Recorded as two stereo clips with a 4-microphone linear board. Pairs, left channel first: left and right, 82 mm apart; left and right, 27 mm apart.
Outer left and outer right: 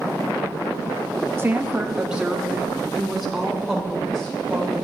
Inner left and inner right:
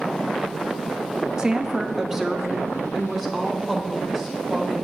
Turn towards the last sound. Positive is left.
turn(degrees=5)  # may be behind; listen again after turning